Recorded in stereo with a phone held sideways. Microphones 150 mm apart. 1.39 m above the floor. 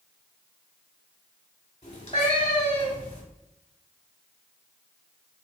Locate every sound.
1.8 s a cat meowing: 45° left (ahead or behind), 1.6 m